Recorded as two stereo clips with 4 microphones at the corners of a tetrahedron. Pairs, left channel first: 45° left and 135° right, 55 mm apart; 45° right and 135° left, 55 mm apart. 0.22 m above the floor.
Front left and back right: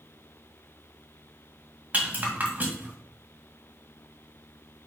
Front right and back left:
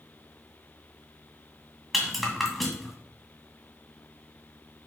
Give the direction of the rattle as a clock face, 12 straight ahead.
4 o'clock.